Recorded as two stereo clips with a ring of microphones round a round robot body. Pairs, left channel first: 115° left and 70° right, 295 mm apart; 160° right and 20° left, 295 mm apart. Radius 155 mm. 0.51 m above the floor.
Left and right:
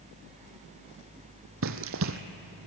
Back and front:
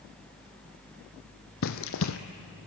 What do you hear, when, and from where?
1.6 s running footsteps: 115° right, 1.2 m